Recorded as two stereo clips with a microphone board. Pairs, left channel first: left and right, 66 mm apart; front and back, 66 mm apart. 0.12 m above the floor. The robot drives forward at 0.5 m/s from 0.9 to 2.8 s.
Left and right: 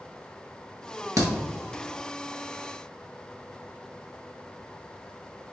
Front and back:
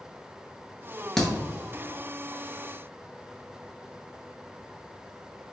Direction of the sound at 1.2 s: 80° right.